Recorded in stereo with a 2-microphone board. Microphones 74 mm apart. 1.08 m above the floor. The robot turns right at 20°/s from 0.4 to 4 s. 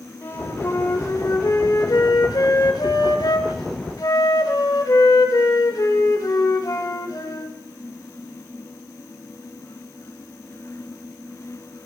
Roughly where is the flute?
Ahead left.